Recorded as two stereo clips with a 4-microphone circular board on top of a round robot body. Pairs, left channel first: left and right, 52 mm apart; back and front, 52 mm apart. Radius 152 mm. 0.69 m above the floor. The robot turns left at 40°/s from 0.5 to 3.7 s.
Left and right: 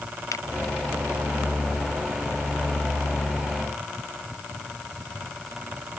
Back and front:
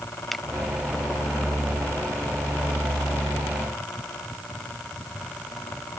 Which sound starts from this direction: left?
A finger snap, at 0.3 s.